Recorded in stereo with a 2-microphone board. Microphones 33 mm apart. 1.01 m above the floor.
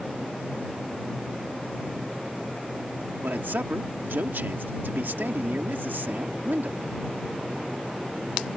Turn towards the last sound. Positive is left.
turn(degrees=-75)  # may be behind; listen again after turning